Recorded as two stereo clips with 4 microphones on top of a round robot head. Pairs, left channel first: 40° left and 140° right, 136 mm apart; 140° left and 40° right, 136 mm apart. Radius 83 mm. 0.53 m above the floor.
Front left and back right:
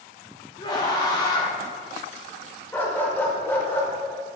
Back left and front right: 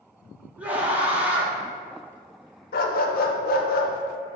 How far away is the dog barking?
About 0.5 m.